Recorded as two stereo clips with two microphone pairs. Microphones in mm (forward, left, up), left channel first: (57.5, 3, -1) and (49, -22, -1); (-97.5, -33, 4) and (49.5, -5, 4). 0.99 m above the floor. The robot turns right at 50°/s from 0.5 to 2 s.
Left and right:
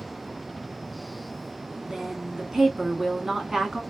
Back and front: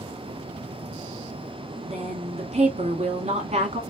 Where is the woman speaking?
40° right, 1.6 m; by 3.8 s 35° right, 1.6 m.